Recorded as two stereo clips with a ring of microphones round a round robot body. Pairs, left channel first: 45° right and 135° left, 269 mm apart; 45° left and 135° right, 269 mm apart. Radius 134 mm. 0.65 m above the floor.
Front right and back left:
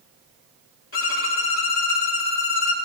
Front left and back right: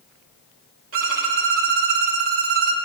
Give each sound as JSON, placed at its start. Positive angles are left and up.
{"t": 0.9, "sound": "a violin", "azimuth_deg": -90, "distance_m": 1.4}